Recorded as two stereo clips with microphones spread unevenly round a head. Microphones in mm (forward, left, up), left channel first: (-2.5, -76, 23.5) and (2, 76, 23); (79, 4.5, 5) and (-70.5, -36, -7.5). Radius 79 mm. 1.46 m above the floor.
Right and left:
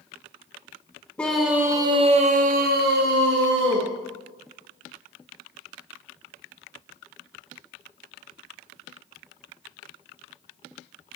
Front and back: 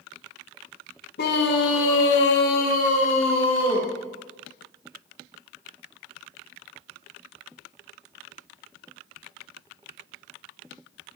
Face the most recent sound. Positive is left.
turn(degrees=80)